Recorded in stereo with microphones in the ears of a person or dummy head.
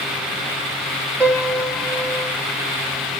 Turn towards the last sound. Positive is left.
turn(degrees=-10)  # may be behind; listen again after turning